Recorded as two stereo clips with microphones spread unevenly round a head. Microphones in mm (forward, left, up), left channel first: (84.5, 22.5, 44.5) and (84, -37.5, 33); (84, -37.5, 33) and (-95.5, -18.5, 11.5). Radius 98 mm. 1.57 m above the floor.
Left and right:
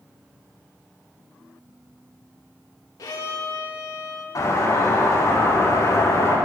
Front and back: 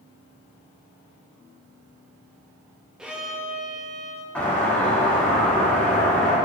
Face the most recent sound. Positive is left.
turn(degrees=80)